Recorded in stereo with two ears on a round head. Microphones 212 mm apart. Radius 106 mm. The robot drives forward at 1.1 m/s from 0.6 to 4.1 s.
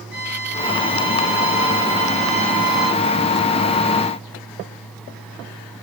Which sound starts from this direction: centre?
A violin, at 0.1 s.